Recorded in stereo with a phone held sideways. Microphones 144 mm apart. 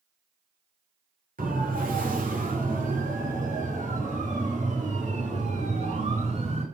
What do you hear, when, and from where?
1.4 s a siren: 85° right, 6 m; by 6.6 s 50° right (ahead or behind), 8.5 m